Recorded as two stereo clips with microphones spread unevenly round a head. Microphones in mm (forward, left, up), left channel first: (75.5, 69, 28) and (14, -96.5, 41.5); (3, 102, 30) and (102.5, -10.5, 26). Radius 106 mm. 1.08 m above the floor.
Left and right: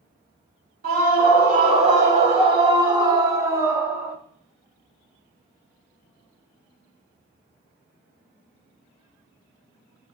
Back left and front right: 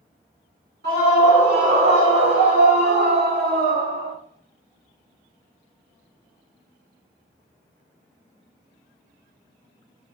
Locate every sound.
0.8 s a scream: 70° right, 2.5 m; by 4.2 s 25° right, 2 m